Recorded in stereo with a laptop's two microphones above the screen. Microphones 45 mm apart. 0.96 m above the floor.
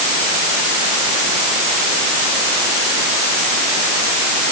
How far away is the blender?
No blender in this recording.